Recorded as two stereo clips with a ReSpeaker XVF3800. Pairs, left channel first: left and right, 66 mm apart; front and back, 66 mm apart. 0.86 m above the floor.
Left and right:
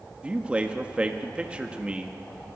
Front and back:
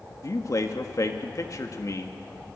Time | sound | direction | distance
0.2 | a man speaking | 20° right | 1.6 m